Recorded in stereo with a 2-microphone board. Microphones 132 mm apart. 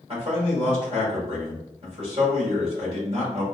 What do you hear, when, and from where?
0.1 s a man speaking: 50° right (ahead or behind), 1.7 m